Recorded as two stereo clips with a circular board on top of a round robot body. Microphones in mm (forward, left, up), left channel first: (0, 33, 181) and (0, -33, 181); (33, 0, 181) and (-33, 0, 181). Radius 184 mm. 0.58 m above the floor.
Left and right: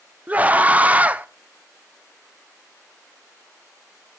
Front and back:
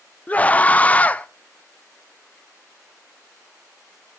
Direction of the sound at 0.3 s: 45° right.